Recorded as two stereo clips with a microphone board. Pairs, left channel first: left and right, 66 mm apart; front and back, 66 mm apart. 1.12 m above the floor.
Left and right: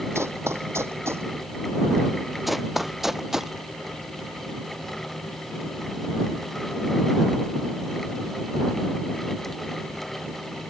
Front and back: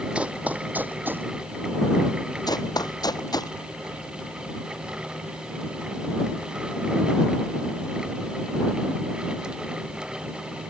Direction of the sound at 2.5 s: Straight ahead.